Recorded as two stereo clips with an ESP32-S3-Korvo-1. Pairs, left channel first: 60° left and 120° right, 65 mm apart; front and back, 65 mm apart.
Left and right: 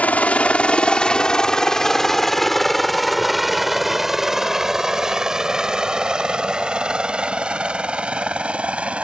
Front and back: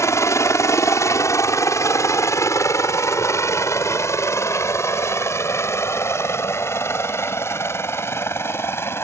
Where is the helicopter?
Straight ahead; by 9.0 s 50° right.